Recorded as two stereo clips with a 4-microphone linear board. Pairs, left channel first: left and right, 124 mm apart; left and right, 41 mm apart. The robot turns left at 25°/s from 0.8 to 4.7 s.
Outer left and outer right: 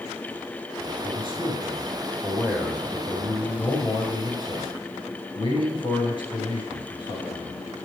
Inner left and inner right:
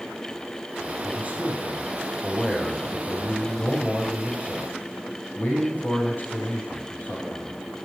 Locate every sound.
1.0 s a man speaking: 130° right, 6.5 m; by 7.6 s 135° left, 6.5 m